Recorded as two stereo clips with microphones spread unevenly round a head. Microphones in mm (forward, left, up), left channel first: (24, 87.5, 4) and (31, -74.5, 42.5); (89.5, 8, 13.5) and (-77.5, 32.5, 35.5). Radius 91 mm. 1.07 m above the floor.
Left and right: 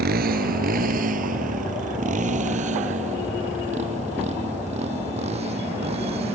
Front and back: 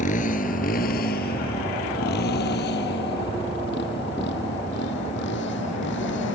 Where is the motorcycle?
60° right; by 6.3 s 35° right.